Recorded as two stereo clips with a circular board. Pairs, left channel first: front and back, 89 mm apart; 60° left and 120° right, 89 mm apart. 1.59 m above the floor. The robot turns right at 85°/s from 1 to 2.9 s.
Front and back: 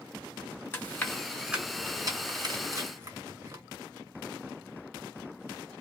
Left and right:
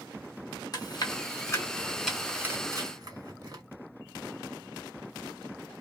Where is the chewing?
55° left, 1.8 m; by 3.6 s 140° right, 1.8 m.